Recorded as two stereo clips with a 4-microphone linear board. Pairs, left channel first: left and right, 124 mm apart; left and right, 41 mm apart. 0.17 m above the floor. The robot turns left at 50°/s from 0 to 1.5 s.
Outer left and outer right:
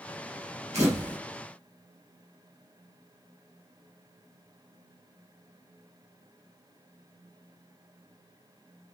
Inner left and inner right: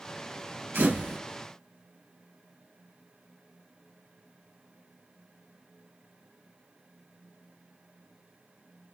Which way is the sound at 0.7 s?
65° right (ahead or behind).